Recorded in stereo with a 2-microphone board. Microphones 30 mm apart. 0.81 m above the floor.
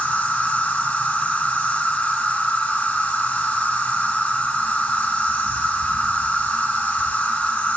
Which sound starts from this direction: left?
An insect, at 0.0 s.